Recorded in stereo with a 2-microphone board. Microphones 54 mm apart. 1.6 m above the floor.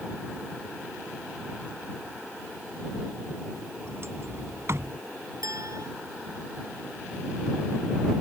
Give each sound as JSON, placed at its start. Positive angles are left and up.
{"t": 3.9, "sound": "a sliding door", "side_deg": -55}
{"t": 5.4, "sound": "a clink", "side_deg": -90}